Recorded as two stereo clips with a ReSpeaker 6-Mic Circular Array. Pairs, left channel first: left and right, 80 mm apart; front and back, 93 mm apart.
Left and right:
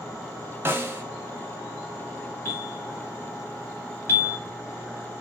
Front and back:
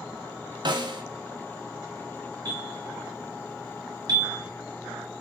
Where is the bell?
145° left, 1.4 m.